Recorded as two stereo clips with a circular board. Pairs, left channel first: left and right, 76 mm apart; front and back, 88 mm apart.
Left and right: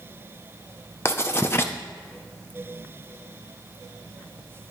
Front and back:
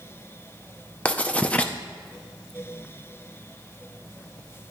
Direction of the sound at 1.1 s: 65° left.